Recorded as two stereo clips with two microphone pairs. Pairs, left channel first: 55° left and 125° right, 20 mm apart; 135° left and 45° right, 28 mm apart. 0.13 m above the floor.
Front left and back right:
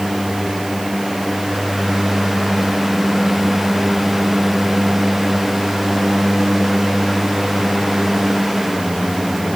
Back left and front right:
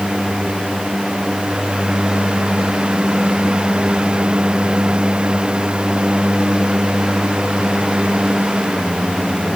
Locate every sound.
Only background noise.